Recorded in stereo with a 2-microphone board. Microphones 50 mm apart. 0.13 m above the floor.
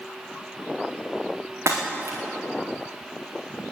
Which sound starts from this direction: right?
Breaking glass, at 1.7 s.